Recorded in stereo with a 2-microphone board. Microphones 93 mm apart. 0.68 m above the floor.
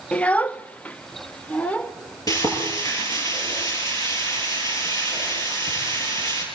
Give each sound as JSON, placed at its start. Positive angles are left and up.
{"t": 0.1, "sound": "a child speaking", "side_deg": 10, "distance_m": 0.5}
{"t": 2.3, "sound": "frying", "side_deg": 40, "distance_m": 9.5}